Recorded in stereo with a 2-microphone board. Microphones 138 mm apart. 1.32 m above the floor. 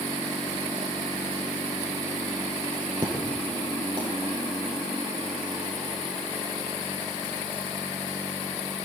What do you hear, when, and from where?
3.0 s an explosion: 35° right (ahead or behind), 6 m